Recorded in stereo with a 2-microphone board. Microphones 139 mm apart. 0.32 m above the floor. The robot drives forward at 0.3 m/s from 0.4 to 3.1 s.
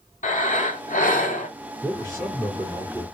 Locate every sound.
0.2 s breathing: 70° left (ahead or behind), 0.9 m; by 1.5 s 75° left (ahead or behind), 0.8 m
1.8 s a man speaking: 30° left (ahead or behind), 2.5 m; by 3.0 s 25° left (ahead or behind), 2.5 m